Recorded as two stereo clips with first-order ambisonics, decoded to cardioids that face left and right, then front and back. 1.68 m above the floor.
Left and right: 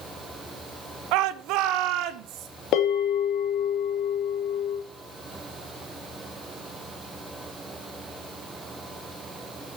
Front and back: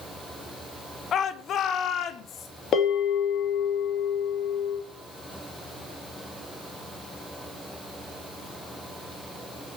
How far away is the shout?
About 0.9 m.